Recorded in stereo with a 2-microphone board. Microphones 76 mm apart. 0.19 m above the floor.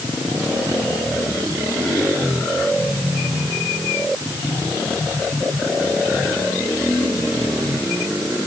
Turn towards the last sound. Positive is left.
No sound to turn to.